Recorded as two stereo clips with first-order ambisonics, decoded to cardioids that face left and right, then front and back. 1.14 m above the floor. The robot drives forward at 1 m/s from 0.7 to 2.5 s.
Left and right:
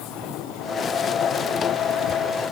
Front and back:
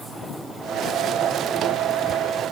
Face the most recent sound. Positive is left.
No sound to turn to.